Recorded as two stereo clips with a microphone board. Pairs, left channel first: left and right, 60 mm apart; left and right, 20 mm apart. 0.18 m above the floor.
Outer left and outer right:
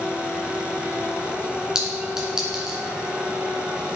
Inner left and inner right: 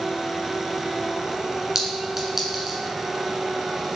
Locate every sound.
1.8 s a clink: 10° right (ahead or behind), 1.4 m